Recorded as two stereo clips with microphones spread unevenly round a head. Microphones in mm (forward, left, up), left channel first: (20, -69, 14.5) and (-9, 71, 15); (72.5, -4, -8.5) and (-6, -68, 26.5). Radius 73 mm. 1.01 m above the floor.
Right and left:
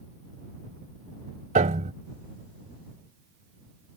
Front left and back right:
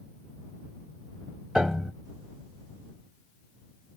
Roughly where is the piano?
Behind left.